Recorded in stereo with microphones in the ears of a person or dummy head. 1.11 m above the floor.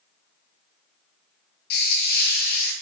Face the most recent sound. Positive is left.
turn(degrees=50)  # may be behind; listen again after turning